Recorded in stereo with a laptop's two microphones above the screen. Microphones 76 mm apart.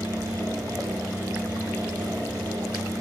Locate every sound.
0.0 s a fan: 60° right (ahead or behind), 1.5 m